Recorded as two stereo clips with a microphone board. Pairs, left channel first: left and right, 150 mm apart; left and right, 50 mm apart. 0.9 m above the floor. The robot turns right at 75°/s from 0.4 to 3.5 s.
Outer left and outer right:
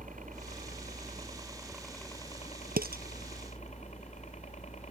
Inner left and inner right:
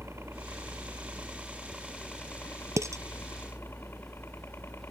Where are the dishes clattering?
80° right.